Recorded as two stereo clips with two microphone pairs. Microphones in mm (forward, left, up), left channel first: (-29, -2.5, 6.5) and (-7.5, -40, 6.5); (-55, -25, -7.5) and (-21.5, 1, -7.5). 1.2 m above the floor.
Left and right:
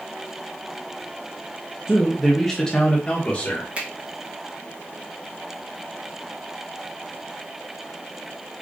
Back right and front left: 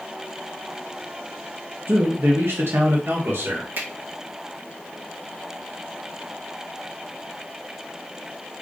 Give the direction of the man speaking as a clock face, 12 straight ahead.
12 o'clock.